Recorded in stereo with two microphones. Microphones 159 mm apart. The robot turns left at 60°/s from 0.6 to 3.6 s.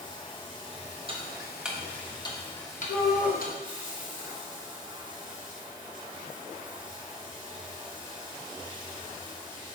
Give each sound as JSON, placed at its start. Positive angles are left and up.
{"t": 0.0, "sound": "running water", "azimuth_deg": 150, "distance_m": 1.2}
{"t": 1.1, "sound": "ticking", "side_deg": -35, "distance_m": 1.0}
{"t": 2.9, "sound": "a shout", "side_deg": 65, "distance_m": 2.5}